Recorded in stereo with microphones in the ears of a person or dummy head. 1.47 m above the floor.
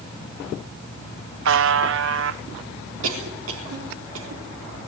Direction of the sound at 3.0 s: 75° right (ahead or behind).